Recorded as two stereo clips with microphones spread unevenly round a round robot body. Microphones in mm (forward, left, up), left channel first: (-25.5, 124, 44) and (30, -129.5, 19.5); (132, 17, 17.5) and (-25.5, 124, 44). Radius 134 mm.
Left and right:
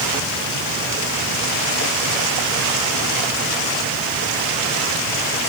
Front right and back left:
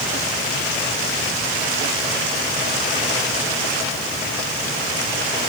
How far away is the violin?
I don't hear a violin.